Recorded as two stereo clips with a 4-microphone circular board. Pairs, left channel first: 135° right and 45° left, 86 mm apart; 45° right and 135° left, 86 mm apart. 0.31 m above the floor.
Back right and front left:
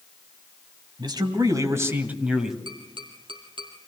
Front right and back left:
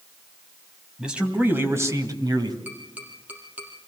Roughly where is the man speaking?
Ahead left.